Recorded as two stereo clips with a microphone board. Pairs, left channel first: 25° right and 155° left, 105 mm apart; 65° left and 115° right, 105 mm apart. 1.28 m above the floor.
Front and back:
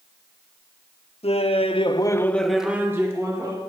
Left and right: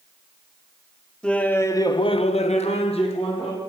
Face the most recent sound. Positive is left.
turn(degrees=100)